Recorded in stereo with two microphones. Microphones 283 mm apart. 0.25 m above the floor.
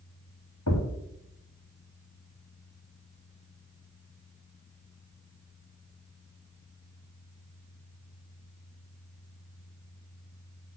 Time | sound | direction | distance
0.7 | a thud | 85° left | 2.5 m